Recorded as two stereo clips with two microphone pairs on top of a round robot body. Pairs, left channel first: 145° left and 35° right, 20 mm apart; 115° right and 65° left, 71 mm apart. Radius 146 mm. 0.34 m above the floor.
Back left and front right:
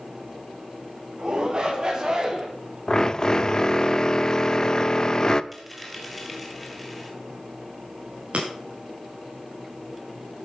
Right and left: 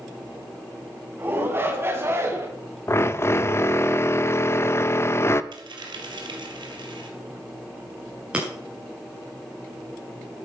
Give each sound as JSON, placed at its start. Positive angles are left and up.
{"t": 1.2, "sound": "a shout", "azimuth_deg": 5, "distance_m": 4.5}
{"t": 2.9, "sound": "a drill", "azimuth_deg": -155, "distance_m": 0.9}
{"t": 5.5, "sound": "a dropped coin", "azimuth_deg": 55, "distance_m": 2.5}
{"t": 8.3, "sound": "breaking glass", "azimuth_deg": -10, "distance_m": 8.0}